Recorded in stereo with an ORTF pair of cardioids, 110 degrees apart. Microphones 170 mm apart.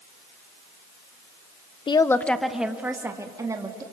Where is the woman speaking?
30° left, 1.0 m; by 3.8 s 20° right, 3 m.